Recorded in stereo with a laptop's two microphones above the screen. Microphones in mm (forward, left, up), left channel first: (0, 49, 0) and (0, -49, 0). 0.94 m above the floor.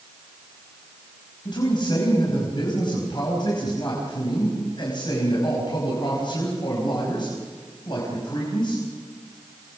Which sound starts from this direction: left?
A man speaking, at 1.4 s.